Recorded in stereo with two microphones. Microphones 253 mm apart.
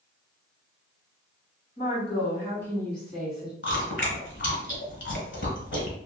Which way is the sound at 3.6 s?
50° left (ahead or behind).